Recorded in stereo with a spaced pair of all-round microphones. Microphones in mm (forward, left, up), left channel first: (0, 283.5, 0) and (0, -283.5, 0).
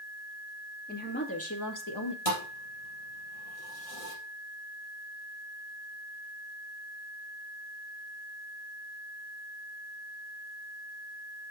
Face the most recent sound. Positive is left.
turn(degrees=70)  # may be behind; listen again after turning